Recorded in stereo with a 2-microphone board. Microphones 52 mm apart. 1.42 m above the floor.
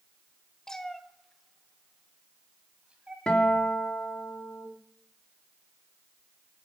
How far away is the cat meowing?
About 1.2 m.